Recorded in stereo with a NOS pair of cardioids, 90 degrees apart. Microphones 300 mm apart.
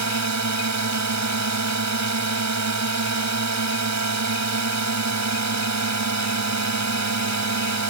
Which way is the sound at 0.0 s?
65° right.